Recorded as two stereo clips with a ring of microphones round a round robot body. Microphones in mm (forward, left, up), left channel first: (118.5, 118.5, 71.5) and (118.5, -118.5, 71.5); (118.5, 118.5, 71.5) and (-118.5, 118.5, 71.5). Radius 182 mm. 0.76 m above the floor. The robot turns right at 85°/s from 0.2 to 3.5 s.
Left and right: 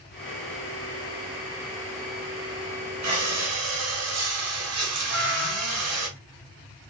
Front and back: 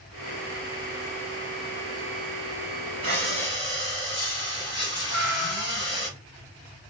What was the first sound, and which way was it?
Breathing, 120° right.